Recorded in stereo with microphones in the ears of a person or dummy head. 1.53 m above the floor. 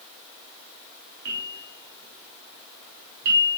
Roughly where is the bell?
Right.